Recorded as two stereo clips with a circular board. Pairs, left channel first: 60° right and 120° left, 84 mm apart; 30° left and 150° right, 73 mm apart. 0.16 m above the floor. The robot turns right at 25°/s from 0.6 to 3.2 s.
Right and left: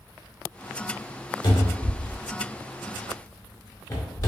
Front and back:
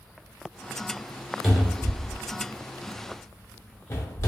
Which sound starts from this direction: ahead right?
A cupboard door, at 1.4 s.